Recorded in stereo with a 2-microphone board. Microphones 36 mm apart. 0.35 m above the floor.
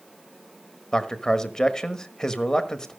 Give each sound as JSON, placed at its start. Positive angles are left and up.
{"t": 0.9, "sound": "a man speaking", "side_deg": 15, "distance_m": 1.3}